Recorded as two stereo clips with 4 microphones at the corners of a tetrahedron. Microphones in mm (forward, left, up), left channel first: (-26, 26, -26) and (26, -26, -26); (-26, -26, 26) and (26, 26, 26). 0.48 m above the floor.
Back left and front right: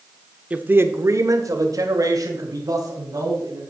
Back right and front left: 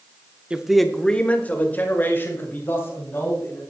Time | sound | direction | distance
0.5 | a man speaking | 5° right | 0.7 m